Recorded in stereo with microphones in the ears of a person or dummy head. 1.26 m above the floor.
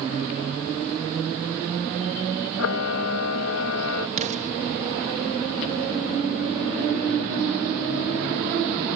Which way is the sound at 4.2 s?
40° right (ahead or behind).